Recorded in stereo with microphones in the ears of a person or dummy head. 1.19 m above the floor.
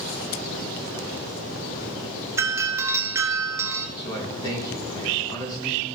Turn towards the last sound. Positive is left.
turn(degrees=25)  # may be behind; listen again after turning